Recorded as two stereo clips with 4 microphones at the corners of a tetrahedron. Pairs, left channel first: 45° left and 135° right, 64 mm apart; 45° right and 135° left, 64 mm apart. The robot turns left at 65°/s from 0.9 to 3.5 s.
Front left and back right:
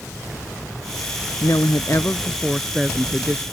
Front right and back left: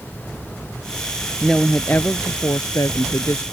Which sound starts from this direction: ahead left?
A woman speaking, at 1.4 s.